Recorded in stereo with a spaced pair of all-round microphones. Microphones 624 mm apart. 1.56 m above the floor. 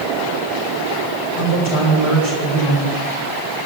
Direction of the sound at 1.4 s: 45° left (ahead or behind).